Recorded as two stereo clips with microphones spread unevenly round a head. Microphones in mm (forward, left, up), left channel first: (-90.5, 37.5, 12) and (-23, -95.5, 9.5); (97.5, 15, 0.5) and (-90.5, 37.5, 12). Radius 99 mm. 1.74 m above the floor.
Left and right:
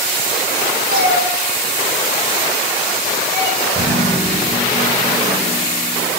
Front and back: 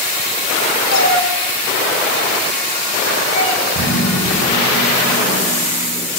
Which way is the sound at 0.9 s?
35° right.